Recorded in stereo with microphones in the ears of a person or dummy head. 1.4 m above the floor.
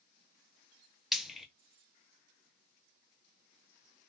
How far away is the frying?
About 0.7 m.